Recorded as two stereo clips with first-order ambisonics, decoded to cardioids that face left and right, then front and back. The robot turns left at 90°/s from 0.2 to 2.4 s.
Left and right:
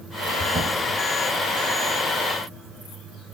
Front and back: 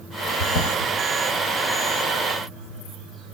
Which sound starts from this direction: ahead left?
A drawer, at 0.4 s.